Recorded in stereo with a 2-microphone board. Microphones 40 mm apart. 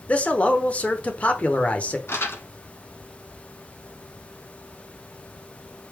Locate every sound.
0.1 s a man speaking: 30° left (ahead or behind), 0.9 m
2.1 s crumpling: 80° left, 1.1 m